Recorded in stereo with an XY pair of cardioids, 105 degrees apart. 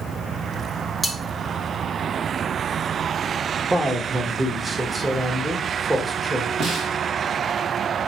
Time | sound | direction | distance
1.0 | cutlery clinking | straight ahead | 1.5 m
3.7 | a man speaking | 15° right | 1.2 m
6.6 | a snare drum | 65° right | 2.0 m